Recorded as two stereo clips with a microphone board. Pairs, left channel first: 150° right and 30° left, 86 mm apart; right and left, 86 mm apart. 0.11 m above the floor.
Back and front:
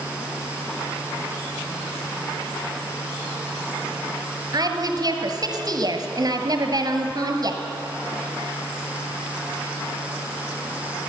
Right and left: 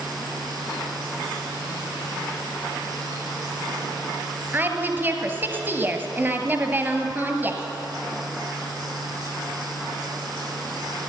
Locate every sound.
4.5 s a woman speaking: 30° left, 1.8 m